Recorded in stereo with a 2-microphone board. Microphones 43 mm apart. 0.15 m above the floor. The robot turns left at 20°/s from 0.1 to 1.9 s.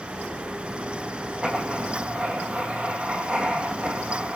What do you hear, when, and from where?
1.4 s writing: 20° right (ahead or behind), 3 m; by 4.3 s 30° right (ahead or behind), 3 m